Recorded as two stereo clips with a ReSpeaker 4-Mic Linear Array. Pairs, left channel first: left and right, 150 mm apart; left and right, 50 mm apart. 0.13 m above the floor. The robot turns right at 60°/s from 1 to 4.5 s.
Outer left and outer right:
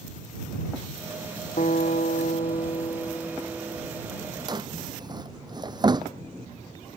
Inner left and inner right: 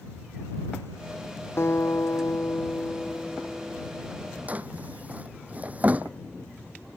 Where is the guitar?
65° left; by 4.1 s 145° right.